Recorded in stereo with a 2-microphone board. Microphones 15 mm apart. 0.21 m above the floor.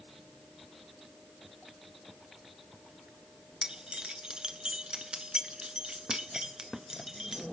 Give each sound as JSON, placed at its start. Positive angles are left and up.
{"t": 3.6, "sound": "keys jangling", "side_deg": -55, "distance_m": 1.7}